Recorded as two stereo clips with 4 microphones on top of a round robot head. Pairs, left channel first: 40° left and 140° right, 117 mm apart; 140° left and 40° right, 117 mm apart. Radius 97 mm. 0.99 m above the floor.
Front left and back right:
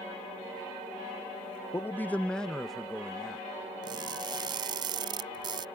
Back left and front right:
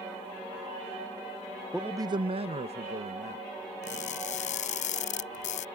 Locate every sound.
1.7 s a man speaking: 45° left; by 3.5 s 55° right
3.8 s crushing: 165° left